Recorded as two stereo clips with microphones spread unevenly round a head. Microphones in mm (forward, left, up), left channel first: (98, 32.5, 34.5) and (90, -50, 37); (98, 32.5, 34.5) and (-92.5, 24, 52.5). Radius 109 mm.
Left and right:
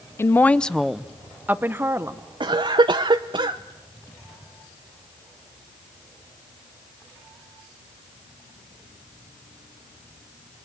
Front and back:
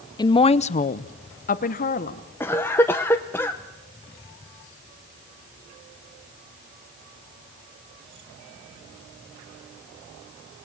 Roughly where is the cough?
Right.